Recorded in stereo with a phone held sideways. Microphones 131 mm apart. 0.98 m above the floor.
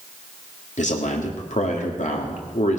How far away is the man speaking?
About 2.5 m.